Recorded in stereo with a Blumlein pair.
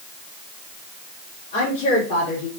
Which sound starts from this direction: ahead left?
A woman speaking, at 1.5 s.